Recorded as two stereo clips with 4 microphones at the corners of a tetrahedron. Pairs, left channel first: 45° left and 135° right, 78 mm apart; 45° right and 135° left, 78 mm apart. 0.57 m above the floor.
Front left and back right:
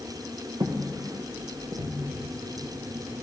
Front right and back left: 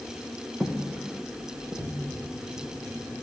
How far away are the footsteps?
About 1.7 m.